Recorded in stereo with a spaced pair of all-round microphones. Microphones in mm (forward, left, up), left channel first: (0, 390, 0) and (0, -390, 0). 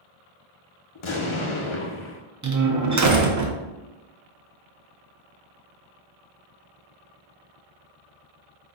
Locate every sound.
0.9 s an explosion: 45° left (ahead or behind), 0.6 m
2.4 s a door slam: 25° right (ahead or behind), 0.5 m